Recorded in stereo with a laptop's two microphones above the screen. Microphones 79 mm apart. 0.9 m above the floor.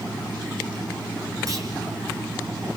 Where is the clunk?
45° right (ahead or behind), 5 m.